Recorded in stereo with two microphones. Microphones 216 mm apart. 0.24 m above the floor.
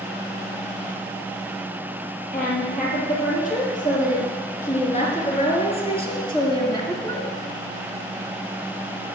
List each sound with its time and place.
2.3 s a woman speaking: 40° left (ahead or behind), 6 m; by 7.3 s 10° left (ahead or behind), 2.5 m